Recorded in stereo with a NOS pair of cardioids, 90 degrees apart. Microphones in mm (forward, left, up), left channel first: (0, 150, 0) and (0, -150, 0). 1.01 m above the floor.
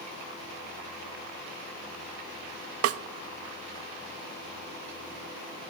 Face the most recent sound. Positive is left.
turn(degrees=-55)